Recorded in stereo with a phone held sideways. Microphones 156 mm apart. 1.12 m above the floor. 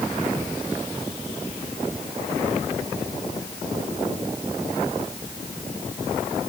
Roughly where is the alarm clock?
No alarm clock in this recording.